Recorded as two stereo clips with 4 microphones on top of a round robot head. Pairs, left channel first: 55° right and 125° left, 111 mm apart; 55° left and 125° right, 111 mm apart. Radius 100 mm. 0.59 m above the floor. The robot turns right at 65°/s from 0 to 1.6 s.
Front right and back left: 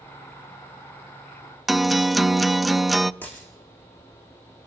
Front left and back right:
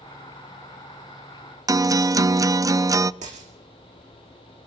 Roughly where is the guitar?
Behind right.